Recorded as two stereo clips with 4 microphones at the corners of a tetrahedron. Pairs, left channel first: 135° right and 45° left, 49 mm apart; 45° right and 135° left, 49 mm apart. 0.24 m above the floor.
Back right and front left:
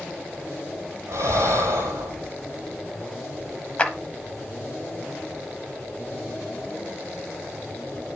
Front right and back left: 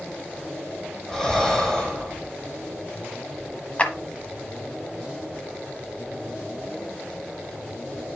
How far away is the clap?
About 1.1 m.